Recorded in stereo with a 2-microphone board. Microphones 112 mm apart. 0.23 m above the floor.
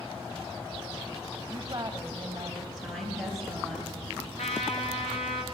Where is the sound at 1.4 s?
30° right (ahead or behind), 1.8 m.